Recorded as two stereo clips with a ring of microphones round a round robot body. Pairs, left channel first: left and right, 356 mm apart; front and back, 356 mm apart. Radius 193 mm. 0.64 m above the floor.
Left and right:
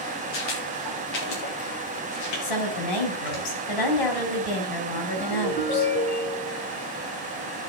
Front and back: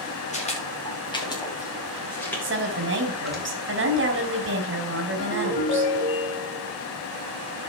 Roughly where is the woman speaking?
Behind left.